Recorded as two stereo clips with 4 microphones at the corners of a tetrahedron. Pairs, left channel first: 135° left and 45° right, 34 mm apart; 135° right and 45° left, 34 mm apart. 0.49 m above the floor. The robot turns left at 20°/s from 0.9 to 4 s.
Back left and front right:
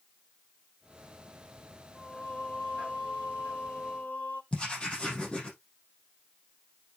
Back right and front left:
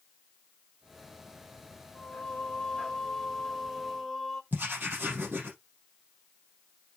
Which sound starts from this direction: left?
Writing, at 4.5 s.